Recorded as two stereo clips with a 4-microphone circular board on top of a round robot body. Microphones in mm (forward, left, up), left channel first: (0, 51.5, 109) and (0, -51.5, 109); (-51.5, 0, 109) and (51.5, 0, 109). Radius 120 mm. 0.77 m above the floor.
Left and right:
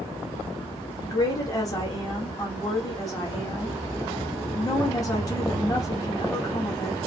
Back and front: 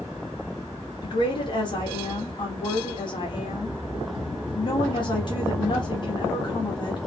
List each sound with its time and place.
1.0 s a woman speaking: 140° left, 1.6 m